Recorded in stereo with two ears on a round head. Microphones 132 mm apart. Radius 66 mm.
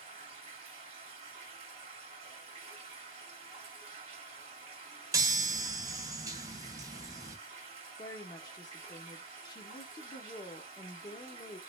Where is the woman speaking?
25° left (ahead or behind), 0.7 m.